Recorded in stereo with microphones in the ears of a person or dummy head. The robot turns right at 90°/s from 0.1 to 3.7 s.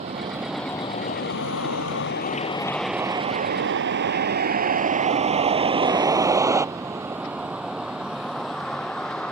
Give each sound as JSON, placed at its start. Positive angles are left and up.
{"t": 0.0, "sound": "a vehicle", "side_deg": -35}